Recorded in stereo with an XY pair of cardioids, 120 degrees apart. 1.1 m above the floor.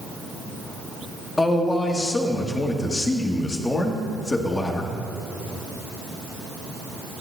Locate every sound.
1.4 s a man speaking: 20° left, 1.6 m